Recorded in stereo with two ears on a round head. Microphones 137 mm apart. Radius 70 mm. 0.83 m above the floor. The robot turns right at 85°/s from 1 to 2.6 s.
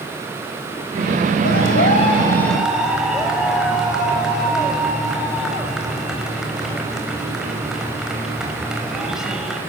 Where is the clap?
85° left, 4.5 m; by 9.6 s 175° right, 4.5 m.